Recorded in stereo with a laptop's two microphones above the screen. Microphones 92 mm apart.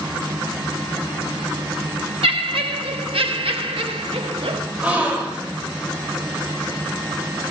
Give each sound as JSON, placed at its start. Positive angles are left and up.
{"t": 2.2, "sound": "laughter", "side_deg": -80, "distance_m": 1.1}
{"t": 4.8, "sound": "a gasp", "side_deg": -15, "distance_m": 2.0}